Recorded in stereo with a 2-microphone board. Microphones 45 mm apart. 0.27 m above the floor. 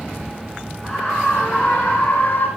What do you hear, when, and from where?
0.8 s a scream: 5° left (ahead or behind), 3 m; by 2.5 s 45° left (ahead or behind), 2.5 m